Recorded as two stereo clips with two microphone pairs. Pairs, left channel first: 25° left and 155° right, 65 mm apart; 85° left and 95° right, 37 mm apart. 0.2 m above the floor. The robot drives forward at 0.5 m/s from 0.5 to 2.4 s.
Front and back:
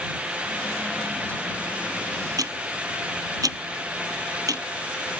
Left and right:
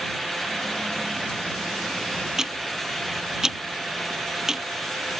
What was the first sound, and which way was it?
Ticking, 170° right.